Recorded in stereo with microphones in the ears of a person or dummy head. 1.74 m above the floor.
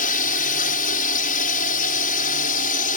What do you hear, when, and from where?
0.0 s a drone: 55° left (ahead or behind)